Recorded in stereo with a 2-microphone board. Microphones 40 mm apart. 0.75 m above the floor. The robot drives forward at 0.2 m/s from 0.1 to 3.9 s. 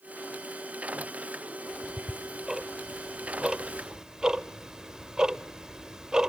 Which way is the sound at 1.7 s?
10° right (ahead or behind).